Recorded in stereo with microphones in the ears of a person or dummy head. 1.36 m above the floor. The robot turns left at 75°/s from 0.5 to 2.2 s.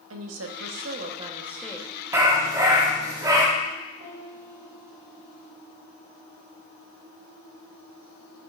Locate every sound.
0.1 s a woman speaking: 100° right, 1.0 m; by 1.9 s 160° left, 1.0 m
2.1 s a dog barking: 15° right (ahead or behind), 1.2 m; by 3.5 s 20° right (ahead or behind), 1.2 m
4.0 s a piano: 35° right (ahead or behind), 4 m